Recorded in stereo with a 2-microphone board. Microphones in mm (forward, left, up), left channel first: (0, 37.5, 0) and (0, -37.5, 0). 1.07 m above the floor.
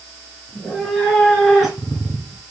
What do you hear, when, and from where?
0.5 s a cat meowing: 5° left (ahead or behind), 3 m; by 2.4 s 15° right (ahead or behind), 1.8 m